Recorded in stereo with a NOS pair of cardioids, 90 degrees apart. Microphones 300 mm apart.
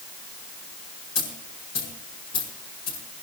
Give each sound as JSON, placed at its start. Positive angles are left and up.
{"t": 1.1, "sound": "a dropped coin", "azimuth_deg": 60, "distance_m": 8.0}